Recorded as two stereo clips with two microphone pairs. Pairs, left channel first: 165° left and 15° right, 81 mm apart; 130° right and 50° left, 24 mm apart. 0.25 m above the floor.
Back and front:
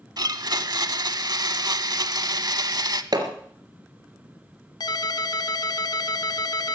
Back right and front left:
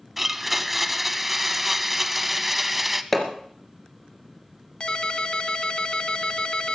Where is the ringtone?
175° right, 1.0 m.